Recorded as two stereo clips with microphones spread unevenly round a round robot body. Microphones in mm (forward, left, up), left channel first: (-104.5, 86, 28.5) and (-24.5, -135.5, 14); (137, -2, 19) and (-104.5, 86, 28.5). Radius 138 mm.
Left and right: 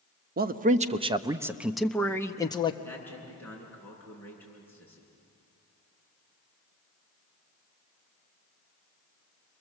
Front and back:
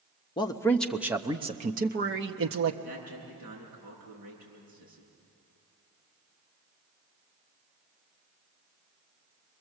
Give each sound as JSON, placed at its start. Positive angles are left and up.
{"t": 0.4, "sound": "a man speaking", "azimuth_deg": -80, "distance_m": 1.0}
{"t": 2.8, "sound": "a man speaking", "azimuth_deg": -170, "distance_m": 8.5}